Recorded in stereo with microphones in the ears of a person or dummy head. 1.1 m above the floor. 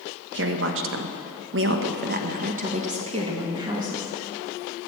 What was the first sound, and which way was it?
A woman speaking, 65° right (ahead or behind).